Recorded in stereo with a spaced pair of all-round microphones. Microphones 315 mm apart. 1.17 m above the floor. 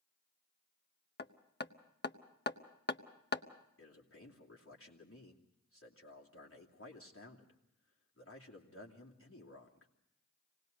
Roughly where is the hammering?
Left.